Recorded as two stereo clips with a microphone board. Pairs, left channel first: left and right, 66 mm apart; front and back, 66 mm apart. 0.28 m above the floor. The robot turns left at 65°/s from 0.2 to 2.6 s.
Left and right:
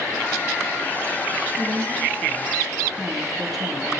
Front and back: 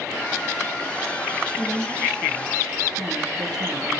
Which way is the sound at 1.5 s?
110° right.